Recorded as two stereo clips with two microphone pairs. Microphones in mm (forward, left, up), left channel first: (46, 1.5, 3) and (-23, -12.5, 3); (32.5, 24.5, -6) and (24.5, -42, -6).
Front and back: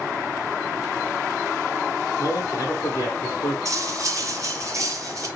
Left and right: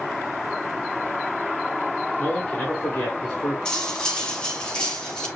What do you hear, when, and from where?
2.2 s a man speaking: 15° left, 1.3 m
3.6 s cutlery clinking: 160° left, 0.8 m